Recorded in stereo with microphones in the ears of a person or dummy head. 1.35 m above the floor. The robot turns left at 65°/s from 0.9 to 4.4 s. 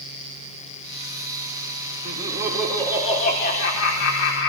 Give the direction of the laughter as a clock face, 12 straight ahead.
5 o'clock.